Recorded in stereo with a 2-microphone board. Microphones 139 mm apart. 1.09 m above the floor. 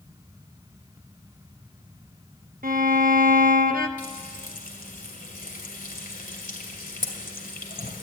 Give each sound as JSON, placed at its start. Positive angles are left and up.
{"t": 2.6, "sound": "a violin", "side_deg": -75, "distance_m": 0.6}
{"t": 4.0, "sound": "frying", "side_deg": 70, "distance_m": 2.0}